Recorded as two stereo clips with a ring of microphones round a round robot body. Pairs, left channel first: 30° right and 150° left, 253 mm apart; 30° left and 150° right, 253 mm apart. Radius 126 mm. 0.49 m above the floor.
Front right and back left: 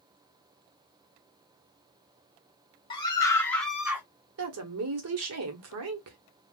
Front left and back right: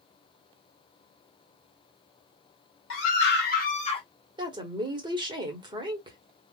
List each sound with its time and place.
2.9 s a scream: 35° left, 1.5 m; by 4.0 s 80° left, 1.1 m
4.4 s a woman speaking: 140° left, 1.3 m